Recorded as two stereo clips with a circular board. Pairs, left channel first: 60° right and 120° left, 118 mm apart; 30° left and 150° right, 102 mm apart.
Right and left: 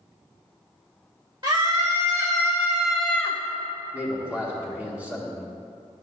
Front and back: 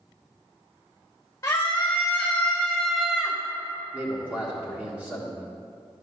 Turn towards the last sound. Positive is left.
turn(degrees=170)